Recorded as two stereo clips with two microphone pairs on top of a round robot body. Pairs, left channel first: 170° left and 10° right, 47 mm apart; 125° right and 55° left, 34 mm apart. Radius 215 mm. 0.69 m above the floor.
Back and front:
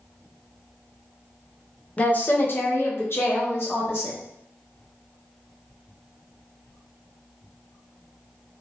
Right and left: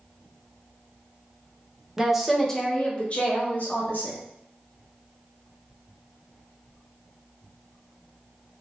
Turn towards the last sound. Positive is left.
turn(degrees=-155)